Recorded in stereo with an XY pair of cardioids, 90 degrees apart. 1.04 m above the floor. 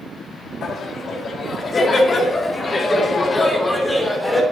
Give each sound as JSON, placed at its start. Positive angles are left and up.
{"t": 0.6, "sound": "laughter", "azimuth_deg": 65, "distance_m": 1.8}